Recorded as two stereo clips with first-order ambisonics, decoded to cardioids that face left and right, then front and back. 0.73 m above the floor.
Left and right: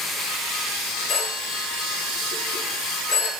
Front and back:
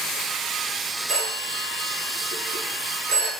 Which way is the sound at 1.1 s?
140° left.